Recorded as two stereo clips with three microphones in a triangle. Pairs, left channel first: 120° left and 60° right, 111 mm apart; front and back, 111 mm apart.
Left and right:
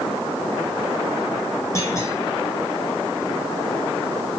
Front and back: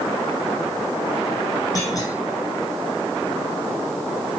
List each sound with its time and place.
1.8 s a clunk: 55° left, 6.5 m